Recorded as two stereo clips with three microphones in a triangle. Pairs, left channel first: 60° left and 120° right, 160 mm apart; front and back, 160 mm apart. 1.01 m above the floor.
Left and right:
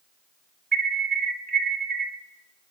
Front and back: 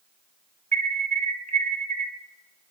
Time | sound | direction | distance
0.7 | an alarm | 140° right | 1.8 m